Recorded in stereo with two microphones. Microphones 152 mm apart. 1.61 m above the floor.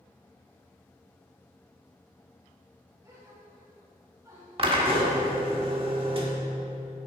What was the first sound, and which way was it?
A gasp, 20° right (ahead or behind).